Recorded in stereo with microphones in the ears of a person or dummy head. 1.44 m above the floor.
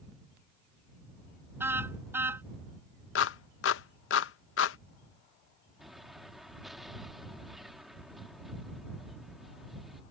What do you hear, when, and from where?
1.6 s a car horn: 15° right (ahead or behind)
3.1 s a clap: 80° left
5.8 s an explosion: 5° left (ahead or behind)